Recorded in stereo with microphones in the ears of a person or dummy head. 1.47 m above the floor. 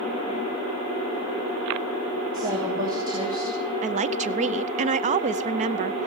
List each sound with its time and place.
2.3 s a woman speaking: 20° right (ahead or behind), 3 m
3.8 s a woman speaking: 30° right (ahead or behind), 0.5 m